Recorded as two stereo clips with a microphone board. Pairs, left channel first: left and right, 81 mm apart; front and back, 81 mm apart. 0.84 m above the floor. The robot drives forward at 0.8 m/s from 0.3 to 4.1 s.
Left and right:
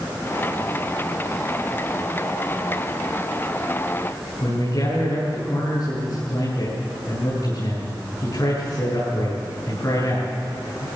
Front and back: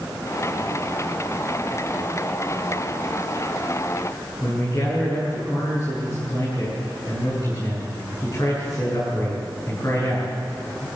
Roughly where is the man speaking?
Ahead left.